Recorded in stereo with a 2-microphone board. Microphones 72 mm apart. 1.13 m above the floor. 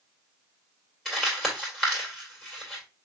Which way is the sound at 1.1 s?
Centre (ahead or behind).